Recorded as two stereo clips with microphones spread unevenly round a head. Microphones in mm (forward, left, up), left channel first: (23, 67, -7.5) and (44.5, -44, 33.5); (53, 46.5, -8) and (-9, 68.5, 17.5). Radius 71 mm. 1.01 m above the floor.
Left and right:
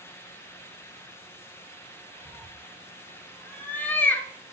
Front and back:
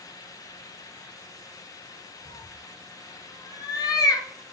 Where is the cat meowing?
10° left, 1.1 m.